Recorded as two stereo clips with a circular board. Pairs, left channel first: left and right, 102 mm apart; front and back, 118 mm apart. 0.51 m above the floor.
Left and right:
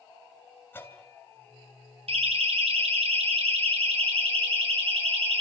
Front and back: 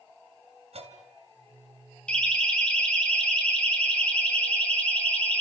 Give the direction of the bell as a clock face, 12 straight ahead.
7 o'clock.